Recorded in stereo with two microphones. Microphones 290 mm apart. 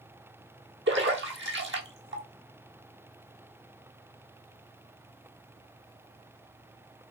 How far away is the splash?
About 1.0 m.